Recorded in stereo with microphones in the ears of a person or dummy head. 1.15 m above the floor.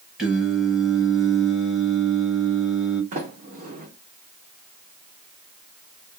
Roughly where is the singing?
Centre.